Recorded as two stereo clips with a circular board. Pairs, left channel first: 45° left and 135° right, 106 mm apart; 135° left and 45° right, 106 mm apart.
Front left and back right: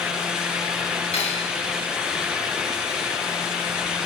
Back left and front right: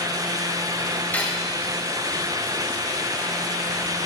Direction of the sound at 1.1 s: 65° left.